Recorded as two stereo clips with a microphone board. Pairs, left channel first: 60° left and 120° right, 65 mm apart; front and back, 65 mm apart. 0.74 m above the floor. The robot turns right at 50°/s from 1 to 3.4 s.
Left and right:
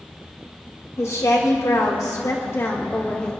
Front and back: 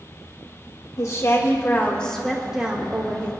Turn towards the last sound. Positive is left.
turn(degrees=140)